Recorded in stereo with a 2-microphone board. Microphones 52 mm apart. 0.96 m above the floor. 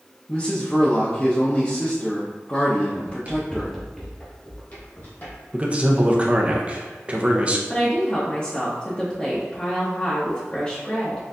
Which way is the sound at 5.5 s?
25° right (ahead or behind).